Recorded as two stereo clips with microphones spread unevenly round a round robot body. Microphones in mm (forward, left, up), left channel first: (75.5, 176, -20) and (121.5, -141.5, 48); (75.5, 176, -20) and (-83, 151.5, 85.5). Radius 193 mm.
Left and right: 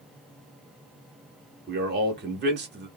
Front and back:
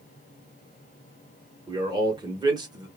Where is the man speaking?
50° right, 0.9 m.